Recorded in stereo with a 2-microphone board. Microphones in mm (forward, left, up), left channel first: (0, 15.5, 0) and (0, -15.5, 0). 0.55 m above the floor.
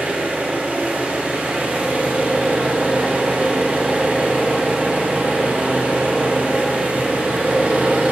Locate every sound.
0.0 s an engine running: 75° right (ahead or behind), 2 m